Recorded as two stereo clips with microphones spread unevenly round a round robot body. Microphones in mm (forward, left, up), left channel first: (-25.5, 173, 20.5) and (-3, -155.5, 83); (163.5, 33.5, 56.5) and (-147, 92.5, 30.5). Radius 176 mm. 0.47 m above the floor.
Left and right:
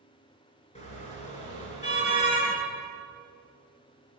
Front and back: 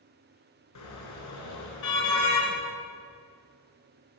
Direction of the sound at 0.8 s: 20° left.